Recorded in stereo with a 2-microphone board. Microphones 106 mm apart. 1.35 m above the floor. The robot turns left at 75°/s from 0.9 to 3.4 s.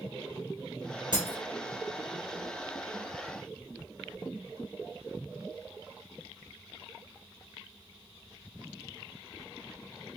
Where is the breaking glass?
45° right (ahead or behind), 2 m; by 1.4 s 35° right (ahead or behind), 2 m.